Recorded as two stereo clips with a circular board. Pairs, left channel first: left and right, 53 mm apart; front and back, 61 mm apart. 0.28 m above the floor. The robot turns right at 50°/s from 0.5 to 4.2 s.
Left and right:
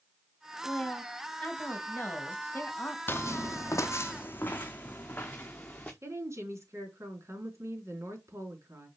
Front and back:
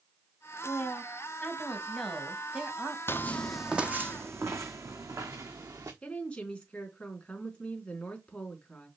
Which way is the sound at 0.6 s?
10° left.